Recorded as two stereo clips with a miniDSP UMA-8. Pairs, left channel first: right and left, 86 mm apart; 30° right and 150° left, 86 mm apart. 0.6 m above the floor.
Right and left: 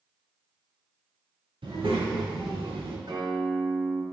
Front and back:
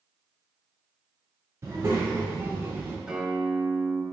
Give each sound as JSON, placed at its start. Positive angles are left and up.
{"t": 1.6, "sound": "a child speaking", "azimuth_deg": 95, "distance_m": 1.8}
{"t": 3.1, "sound": "a guitar", "azimuth_deg": 70, "distance_m": 1.1}